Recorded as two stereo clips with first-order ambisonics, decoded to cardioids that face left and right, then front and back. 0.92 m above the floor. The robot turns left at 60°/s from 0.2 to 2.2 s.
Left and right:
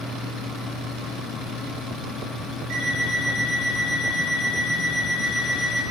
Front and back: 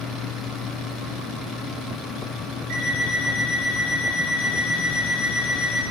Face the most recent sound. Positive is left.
turn(degrees=-140)